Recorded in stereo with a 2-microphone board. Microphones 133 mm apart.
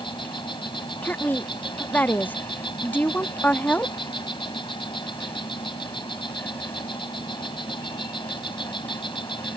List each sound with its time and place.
0.0 s an insect: 40° left (ahead or behind)
1.0 s a woman speaking: 15° left (ahead or behind)